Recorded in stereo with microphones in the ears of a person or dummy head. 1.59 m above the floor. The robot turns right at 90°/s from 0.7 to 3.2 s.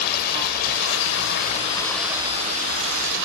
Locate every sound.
0.0 s running water: 65° left; by 3.3 s 70° right